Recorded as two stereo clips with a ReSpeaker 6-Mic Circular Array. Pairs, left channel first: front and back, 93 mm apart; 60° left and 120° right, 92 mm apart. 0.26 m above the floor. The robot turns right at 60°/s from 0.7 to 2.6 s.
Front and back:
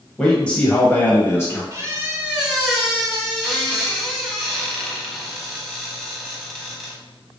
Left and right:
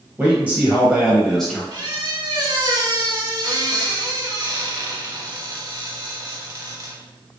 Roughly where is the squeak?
Behind right.